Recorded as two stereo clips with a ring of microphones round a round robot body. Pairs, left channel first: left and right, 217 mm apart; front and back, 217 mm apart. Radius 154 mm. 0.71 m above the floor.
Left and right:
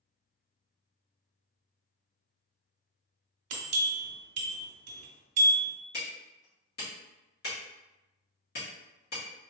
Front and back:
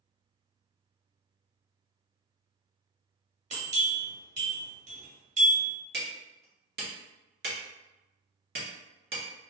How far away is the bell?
About 0.8 m.